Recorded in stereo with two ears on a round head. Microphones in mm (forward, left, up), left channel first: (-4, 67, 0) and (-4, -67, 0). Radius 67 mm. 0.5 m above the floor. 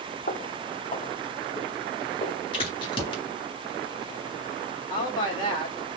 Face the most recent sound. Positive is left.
turn(degrees=30)  # may be behind; listen again after turning